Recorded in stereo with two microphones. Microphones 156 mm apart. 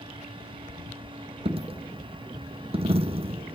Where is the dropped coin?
35° right (ahead or behind), 0.6 m.